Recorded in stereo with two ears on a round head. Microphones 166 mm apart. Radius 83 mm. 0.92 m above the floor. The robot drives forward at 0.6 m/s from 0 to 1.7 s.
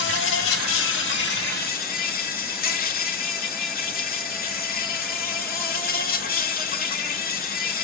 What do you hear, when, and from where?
0.0 s an insect: 60° left (ahead or behind), 0.9 m; by 7.8 s 50° left (ahead or behind), 1.0 m